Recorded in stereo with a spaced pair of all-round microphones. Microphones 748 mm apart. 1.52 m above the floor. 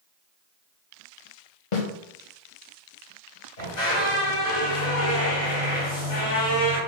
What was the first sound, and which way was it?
A snare drum, 45° left (ahead or behind).